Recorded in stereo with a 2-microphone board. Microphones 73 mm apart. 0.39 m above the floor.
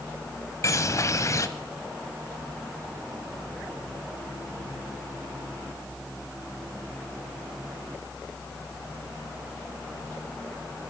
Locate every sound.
0.6 s a bird: 45° left (ahead or behind), 1.0 m